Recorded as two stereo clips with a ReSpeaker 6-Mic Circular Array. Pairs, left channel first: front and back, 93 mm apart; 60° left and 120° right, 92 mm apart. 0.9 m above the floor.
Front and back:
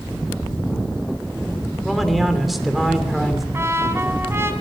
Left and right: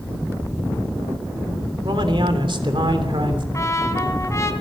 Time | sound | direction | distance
1.8 | a man speaking | 90° right | 3 m
3.5 | a trumpet | 115° left | 2 m